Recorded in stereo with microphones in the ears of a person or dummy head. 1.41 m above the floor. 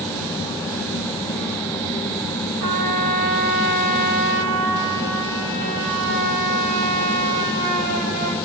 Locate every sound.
2.6 s a trumpet: 45° right (ahead or behind), 0.7 m